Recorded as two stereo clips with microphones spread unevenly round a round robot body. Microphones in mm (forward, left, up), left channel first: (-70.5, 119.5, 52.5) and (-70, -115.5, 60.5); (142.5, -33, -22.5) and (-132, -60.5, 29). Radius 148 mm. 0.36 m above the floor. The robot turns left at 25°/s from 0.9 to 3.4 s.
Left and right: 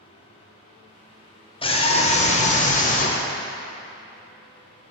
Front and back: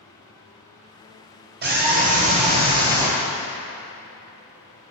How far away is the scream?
About 1.3 m.